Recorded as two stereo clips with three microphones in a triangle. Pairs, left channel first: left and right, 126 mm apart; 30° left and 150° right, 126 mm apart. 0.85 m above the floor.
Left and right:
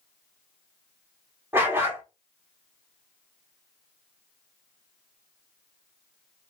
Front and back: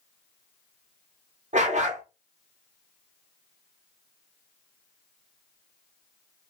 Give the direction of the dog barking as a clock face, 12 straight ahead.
5 o'clock.